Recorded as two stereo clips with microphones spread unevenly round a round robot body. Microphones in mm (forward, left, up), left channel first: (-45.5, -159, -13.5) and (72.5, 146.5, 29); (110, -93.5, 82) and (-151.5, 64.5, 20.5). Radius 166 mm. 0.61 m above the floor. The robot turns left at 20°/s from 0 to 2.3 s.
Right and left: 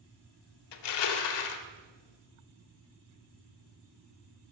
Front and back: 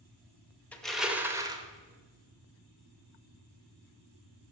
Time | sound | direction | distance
0.7 | crushing | 115° right | 1.0 m